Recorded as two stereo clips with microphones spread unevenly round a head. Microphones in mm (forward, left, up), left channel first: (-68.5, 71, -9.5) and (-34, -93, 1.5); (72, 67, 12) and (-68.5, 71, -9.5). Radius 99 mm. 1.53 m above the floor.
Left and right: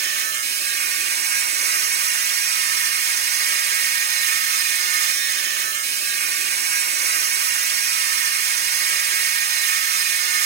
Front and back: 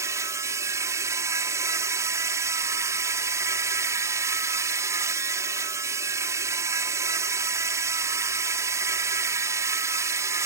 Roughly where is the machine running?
Right.